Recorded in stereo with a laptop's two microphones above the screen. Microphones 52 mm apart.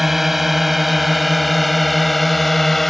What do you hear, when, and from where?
0.0 s a drone: 5° right (ahead or behind); by 2.9 s 5° left (ahead or behind)